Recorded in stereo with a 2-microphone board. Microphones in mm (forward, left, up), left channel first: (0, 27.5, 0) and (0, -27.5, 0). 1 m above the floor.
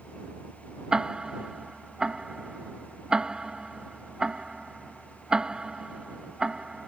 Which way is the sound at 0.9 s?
15° right (ahead or behind).